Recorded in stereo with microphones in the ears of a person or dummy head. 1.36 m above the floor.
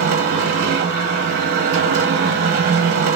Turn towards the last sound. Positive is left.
turn(degrees=-50)  # may be behind; listen again after turning